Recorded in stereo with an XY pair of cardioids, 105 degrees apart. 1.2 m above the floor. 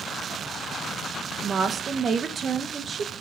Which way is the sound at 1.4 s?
45° right.